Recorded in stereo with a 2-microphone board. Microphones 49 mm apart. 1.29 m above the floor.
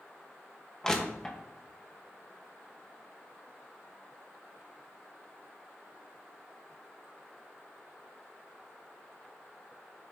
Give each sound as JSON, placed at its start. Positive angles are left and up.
{"t": 0.8, "sound": "crushing", "side_deg": 15, "distance_m": 1.1}